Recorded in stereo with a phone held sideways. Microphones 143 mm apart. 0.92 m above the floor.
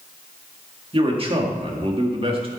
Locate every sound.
0.9 s a man speaking: 40° right (ahead or behind), 1.9 m